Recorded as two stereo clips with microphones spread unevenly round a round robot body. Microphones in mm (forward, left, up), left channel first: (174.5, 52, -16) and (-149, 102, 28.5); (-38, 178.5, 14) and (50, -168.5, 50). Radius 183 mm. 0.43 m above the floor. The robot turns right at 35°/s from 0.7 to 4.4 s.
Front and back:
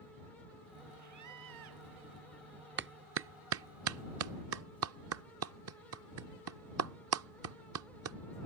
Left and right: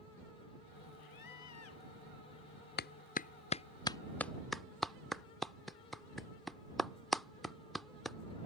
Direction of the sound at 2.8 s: 130° left.